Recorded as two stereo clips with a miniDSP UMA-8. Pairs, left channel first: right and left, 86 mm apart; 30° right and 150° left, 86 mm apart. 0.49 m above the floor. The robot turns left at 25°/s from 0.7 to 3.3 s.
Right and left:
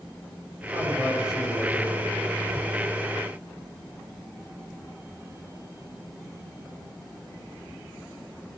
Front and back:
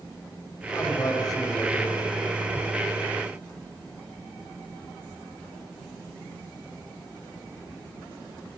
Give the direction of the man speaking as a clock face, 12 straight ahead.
11 o'clock.